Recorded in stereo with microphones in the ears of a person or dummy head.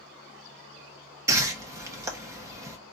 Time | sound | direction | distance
1.3 | a whoosh | 20° right (ahead or behind) | 1.3 m